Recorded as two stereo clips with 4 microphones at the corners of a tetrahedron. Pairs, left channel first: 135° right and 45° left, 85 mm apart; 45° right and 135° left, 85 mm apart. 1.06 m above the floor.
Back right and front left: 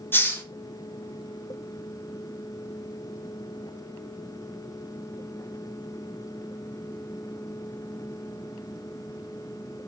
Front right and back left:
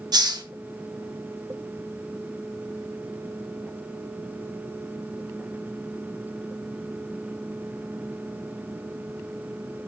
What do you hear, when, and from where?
0.1 s a hiss: 165° left, 1.3 m